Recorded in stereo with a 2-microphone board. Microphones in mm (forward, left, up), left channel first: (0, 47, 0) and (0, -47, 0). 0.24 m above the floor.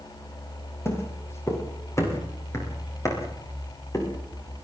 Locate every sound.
0.8 s footsteps: 25° left (ahead or behind), 8 m; by 4.1 s 35° left (ahead or behind), 9.5 m